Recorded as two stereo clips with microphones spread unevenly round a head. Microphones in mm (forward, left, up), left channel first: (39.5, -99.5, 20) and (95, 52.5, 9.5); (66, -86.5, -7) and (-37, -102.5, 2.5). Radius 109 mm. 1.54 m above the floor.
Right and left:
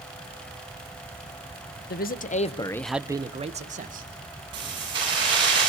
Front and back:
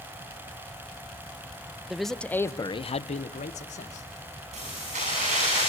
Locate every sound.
1.9 s a man speaking: 85° right, 1.7 m; by 4.1 s 35° left, 2.5 m
4.5 s keys jangling: 140° left, 8 m